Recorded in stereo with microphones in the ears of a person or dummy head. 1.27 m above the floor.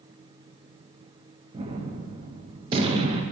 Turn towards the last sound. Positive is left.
turn(degrees=-25)  # may be behind; listen again after turning